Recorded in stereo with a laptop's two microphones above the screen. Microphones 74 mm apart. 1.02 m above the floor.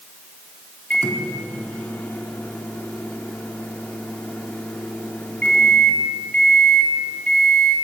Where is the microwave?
20° left (ahead or behind), 1.7 m.